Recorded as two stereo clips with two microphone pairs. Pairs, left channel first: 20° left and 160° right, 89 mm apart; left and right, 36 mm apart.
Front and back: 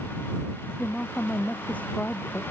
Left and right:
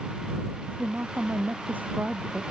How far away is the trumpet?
I don't hear a trumpet.